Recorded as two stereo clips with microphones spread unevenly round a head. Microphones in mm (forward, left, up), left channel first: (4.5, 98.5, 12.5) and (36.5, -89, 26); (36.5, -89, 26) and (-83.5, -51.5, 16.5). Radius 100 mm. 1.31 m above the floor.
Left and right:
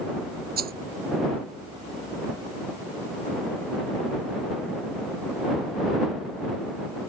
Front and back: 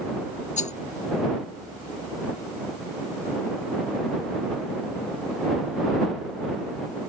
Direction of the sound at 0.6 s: 40° right.